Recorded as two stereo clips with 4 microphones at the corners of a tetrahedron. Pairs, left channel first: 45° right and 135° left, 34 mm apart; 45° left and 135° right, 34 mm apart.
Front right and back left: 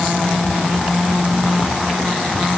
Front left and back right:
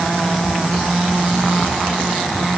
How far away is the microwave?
I don't hear a microwave.